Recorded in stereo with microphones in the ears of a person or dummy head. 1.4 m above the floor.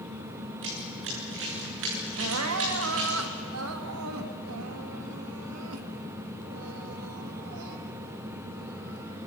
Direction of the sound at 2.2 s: 80° right.